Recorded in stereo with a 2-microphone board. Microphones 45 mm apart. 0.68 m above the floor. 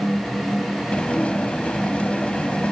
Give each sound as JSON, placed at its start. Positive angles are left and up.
{"t": 0.9, "sound": "dishes clattering", "side_deg": 25}